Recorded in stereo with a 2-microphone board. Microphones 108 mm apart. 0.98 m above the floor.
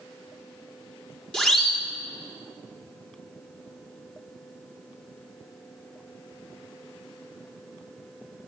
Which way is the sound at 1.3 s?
5° left (ahead or behind).